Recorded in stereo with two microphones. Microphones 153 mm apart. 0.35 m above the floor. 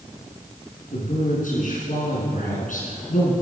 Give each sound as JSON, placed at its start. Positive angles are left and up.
{"t": 0.9, "sound": "a man speaking", "side_deg": 65, "distance_m": 4.5}